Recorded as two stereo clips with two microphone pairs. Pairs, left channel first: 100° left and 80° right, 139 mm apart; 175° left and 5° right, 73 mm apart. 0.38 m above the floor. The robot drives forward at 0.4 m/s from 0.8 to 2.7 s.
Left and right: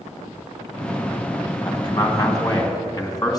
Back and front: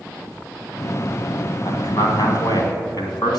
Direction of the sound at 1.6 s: 160° left.